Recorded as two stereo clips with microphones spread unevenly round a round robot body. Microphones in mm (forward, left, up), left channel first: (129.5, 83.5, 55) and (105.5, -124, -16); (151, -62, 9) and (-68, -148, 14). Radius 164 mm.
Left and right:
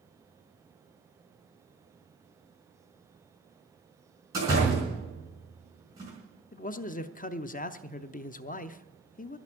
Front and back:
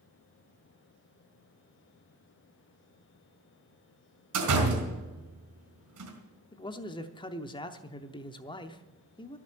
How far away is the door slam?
About 3.5 m.